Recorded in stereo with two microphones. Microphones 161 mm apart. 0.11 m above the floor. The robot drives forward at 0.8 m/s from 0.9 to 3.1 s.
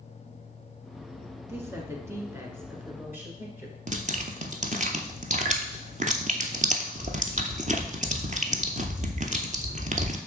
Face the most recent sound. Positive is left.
turn(degrees=-50)  # may be behind; listen again after turning